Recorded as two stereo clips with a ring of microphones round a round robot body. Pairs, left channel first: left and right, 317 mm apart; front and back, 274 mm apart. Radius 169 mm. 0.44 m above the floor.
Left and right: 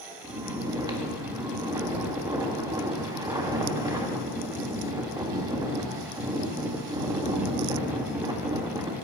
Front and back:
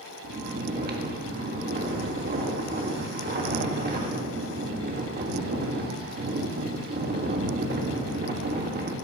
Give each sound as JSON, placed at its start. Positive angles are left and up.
{"t": 0.2, "sound": "snoring", "azimuth_deg": -160, "distance_m": 1.5}